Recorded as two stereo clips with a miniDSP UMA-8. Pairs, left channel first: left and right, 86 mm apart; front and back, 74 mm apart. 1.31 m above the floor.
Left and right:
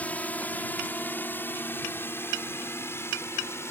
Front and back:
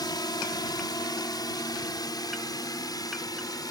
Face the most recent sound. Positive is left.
turn(degrees=30)